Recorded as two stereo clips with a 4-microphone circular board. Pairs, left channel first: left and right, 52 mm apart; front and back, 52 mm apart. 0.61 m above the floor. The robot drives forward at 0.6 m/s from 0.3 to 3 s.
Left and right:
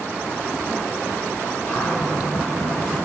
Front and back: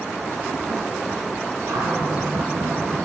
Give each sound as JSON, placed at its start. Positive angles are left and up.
{"t": 1.7, "sound": "a cupboard door", "azimuth_deg": 155, "distance_m": 3.5}